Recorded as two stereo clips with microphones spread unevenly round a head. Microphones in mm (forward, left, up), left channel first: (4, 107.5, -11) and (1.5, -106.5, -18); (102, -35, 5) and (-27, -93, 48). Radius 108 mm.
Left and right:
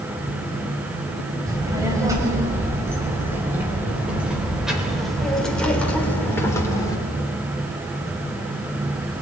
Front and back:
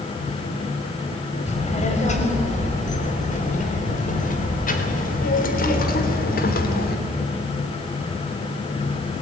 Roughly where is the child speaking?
Ahead.